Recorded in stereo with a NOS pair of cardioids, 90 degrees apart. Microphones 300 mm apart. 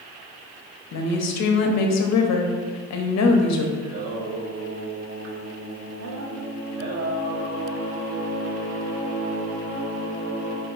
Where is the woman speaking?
60° left, 0.8 m.